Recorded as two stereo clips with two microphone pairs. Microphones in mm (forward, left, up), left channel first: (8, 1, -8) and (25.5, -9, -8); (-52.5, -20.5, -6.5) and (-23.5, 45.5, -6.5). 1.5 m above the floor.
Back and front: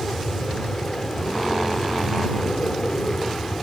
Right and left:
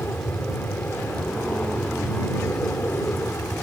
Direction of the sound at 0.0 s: 170° right.